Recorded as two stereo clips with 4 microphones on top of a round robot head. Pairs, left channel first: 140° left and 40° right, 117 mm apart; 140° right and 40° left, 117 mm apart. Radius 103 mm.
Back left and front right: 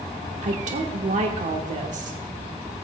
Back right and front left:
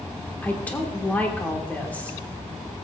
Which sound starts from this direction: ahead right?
A woman speaking, at 0.4 s.